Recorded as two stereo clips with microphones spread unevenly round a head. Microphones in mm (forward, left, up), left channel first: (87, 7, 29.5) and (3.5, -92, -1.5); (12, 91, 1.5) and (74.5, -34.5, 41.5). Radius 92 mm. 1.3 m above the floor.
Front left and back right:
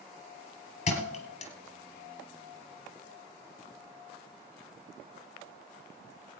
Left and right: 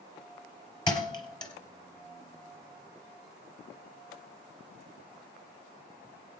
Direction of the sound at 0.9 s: 50° left.